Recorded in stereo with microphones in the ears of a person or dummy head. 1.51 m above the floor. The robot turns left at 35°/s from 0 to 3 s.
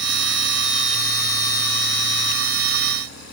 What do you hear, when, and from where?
Only background noise.